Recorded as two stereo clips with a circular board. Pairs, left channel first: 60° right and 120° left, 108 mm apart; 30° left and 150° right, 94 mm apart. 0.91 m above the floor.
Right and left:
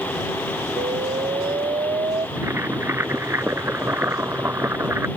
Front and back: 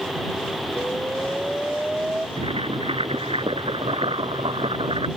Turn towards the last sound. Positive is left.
turn(degrees=-170)